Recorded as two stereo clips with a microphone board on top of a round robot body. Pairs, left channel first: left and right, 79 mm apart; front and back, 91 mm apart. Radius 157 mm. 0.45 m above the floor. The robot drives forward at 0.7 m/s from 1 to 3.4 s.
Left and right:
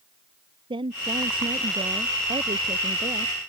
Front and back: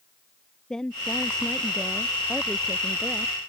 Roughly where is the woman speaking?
Right.